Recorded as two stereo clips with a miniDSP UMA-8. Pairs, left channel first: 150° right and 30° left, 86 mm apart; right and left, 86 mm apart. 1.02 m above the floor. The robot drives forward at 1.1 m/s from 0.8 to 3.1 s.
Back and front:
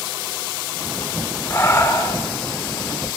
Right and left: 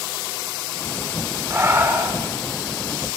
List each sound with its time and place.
1.5 s breathing: 150° left, 3.5 m; by 2.2 s 155° left, 4.5 m